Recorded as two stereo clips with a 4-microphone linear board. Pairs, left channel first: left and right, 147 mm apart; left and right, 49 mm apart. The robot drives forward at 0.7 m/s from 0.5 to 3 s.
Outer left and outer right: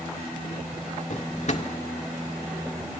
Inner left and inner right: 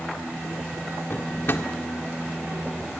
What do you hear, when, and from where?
1.1 s a drawer: 55° left (ahead or behind), 1.8 m; by 1.7 s 50° left (ahead or behind), 1.8 m